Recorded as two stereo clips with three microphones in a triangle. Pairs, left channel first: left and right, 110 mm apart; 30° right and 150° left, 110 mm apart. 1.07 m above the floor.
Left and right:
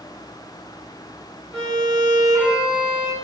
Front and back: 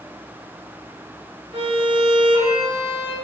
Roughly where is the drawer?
No drawer in this recording.